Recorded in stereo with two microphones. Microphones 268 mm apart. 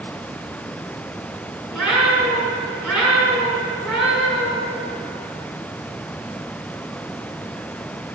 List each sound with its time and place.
1.7 s a cat meowing: centre (ahead or behind), 6.5 m